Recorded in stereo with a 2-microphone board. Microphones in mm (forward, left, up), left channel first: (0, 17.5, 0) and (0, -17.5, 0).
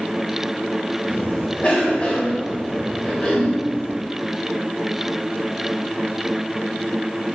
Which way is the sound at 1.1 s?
35° left (ahead or behind).